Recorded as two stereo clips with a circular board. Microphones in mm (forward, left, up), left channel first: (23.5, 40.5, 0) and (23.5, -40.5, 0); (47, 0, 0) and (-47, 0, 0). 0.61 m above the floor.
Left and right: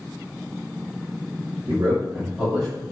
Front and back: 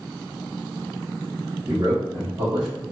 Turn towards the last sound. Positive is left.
turn(degrees=170)